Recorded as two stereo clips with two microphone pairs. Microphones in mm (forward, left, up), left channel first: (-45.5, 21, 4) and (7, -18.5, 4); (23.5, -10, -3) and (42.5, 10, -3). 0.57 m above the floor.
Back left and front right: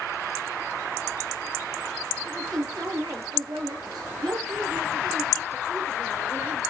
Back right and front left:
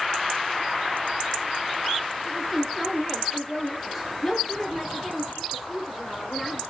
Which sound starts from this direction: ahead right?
A woman speaking, at 2.2 s.